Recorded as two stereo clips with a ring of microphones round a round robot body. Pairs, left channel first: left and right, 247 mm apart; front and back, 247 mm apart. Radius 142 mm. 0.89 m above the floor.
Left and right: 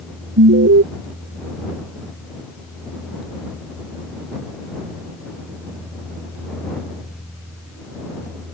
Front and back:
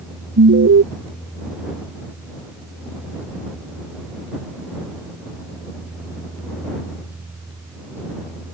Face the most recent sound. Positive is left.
turn(degrees=-135)